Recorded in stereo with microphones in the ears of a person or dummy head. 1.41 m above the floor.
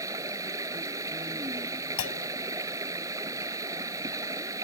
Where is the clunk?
70° left (ahead or behind).